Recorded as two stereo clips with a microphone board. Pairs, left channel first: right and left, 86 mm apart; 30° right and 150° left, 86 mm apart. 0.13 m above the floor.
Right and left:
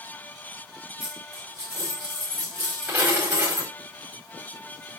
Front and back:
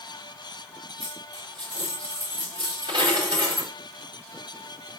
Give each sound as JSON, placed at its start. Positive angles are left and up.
{"t": 1.0, "sound": "a dropped coin", "azimuth_deg": 155, "distance_m": 4.5}